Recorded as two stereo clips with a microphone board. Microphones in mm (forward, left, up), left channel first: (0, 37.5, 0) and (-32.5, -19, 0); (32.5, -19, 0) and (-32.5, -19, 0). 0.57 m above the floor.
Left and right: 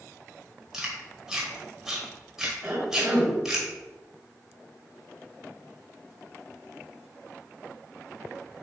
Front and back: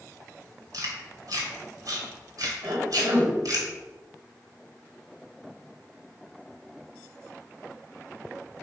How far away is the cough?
About 3.5 m.